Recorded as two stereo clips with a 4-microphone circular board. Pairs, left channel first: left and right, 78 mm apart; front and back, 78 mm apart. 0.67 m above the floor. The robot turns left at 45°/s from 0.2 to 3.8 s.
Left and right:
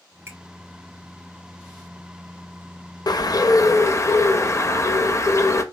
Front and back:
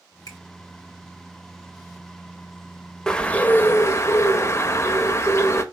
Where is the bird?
80° left, 0.5 m; by 5.6 s 45° left, 0.5 m.